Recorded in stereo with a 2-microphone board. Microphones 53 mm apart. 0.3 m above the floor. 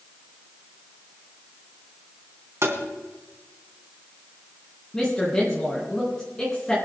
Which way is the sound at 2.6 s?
60° right (ahead or behind).